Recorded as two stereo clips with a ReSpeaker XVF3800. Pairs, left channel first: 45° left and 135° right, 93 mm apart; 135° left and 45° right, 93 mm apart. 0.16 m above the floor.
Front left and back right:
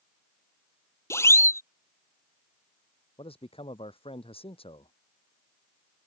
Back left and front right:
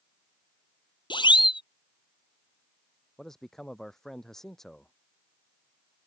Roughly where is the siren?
Left.